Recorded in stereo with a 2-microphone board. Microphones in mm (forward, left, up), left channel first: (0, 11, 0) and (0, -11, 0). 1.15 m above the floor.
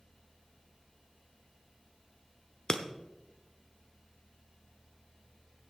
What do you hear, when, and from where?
2.7 s breaking glass: 35° left (ahead or behind), 0.9 m